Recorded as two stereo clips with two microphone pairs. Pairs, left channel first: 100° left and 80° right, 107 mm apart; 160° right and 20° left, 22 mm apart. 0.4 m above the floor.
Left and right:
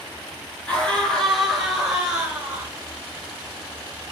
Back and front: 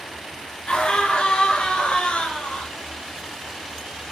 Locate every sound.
0.7 s a scream: 175° right, 5.5 m; by 2.7 s 150° right, 5.5 m